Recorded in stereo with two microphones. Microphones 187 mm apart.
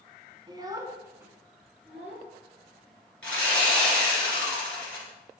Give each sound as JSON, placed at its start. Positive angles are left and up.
{"t": 0.5, "sound": "a child speaking", "side_deg": -25, "distance_m": 0.7}
{"t": 3.2, "sound": "sawing", "side_deg": 5, "distance_m": 2.5}